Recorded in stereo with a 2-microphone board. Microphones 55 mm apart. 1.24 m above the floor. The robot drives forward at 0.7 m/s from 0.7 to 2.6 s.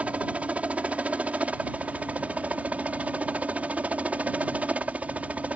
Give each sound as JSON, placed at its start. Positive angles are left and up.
{"t": 0.0, "sound": "a helicopter", "side_deg": -25}